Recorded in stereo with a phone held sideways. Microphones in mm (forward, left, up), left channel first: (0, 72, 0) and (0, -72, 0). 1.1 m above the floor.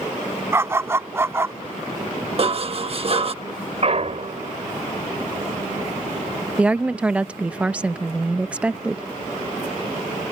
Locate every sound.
0.5 s a dog barking: 20° right (ahead or behind)
2.4 s dishes clattering: 45° right (ahead or behind)
3.8 s a clunk: 45° right (ahead or behind)
6.6 s a woman speaking: 10° right (ahead or behind)